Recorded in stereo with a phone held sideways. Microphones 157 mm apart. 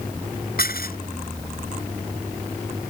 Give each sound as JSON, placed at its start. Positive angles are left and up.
{"t": 0.6, "sound": "dishes clattering", "side_deg": 75}